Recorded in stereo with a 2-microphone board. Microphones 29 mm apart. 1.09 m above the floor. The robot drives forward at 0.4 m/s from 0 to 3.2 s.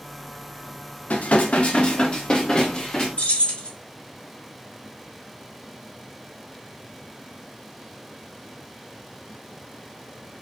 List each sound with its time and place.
1.1 s dishes clattering: 60° left (ahead or behind), 0.6 m; by 3.1 s 25° left (ahead or behind), 1.2 m
3.2 s keys jangling: 45° left (ahead or behind), 2.5 m